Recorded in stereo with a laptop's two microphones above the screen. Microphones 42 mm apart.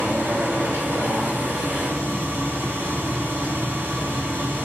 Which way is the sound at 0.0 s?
65° right (ahead or behind).